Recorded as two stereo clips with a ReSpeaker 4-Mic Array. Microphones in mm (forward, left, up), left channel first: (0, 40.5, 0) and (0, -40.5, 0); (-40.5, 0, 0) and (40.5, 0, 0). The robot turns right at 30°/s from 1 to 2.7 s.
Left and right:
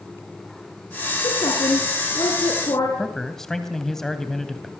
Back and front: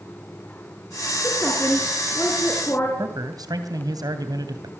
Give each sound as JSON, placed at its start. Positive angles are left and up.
{"t": 1.2, "sound": "a woman speaking", "azimuth_deg": 80, "distance_m": 4.5}
{"t": 3.0, "sound": "a man speaking", "azimuth_deg": 10, "distance_m": 2.5}